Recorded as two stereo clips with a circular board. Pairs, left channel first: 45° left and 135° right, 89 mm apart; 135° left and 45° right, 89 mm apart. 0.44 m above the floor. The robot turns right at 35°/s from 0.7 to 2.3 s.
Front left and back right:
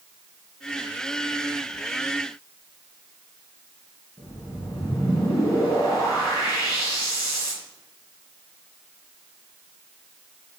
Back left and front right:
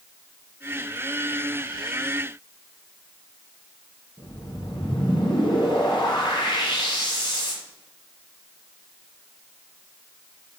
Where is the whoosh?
95° left, 3.5 m.